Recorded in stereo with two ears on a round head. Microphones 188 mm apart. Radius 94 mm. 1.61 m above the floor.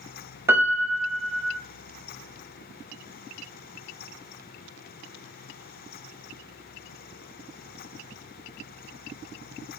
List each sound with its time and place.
0.5 s a piano: 10° right (ahead or behind), 0.5 m